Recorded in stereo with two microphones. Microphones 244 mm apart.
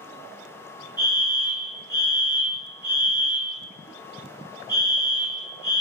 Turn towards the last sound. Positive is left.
turn(degrees=15)  # may be behind; listen again after turning